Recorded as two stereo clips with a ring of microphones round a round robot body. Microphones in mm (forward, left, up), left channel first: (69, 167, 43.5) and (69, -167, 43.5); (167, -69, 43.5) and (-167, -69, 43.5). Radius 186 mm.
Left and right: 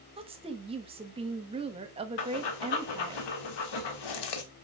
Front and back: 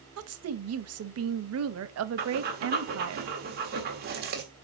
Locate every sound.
0.2 s a woman speaking: 160° right, 1.0 m
2.2 s breathing: 115° left, 1.5 m